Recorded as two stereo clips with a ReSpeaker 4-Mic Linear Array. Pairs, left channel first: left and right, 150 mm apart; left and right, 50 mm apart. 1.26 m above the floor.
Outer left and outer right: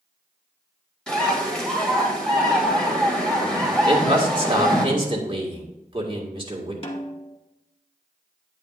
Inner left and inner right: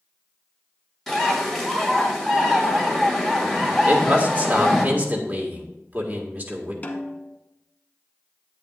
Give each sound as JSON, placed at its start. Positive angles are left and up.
{"t": 1.1, "sound": "a bird", "side_deg": 5, "distance_m": 1.9}
{"t": 3.9, "sound": "a man speaking", "side_deg": -35, "distance_m": 1.7}
{"t": 6.8, "sound": "a snare drum", "side_deg": 40, "distance_m": 1.1}